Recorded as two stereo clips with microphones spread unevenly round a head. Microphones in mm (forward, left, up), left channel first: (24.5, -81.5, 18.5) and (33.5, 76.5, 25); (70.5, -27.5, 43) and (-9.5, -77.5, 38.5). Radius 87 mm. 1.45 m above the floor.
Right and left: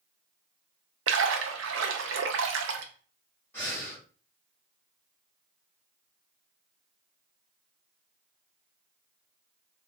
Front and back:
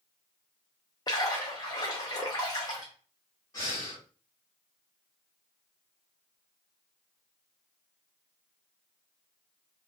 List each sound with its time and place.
1.1 s a splash: 95° left, 0.5 m
3.5 s breathing: 15° right, 1.8 m